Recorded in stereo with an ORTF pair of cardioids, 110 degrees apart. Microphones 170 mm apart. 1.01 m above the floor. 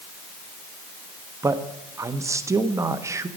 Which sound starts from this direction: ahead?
A man speaking, at 1.4 s.